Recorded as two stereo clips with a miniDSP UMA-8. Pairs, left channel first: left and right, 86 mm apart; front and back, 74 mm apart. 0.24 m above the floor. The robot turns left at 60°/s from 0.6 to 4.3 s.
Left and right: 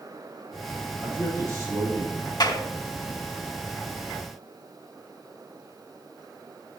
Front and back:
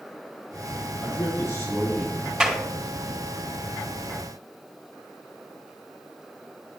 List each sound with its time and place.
1.0 s a man speaking: 15° right, 5.5 m; by 2.3 s 90° right, 5.5 m
2.4 s a clap: 105° left, 1.7 m; by 2.6 s 90° left, 1.7 m